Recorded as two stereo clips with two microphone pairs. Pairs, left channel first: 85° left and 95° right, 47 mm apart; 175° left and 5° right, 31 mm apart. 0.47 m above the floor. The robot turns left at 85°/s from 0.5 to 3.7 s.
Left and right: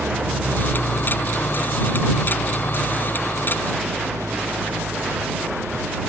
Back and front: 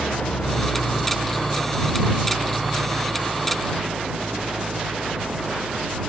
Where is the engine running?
150° right; by 6.1 s 60° right.